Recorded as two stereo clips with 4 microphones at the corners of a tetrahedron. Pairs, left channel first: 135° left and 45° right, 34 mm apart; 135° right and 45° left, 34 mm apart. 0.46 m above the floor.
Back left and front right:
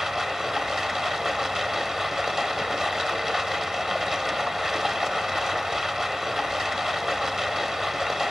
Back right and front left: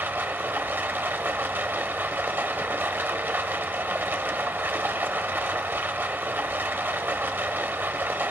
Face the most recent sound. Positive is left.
turn(degrees=30)